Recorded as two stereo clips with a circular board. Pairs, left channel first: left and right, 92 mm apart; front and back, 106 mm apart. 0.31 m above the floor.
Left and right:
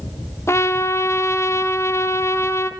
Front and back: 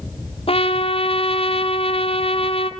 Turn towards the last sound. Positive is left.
turn(degrees=30)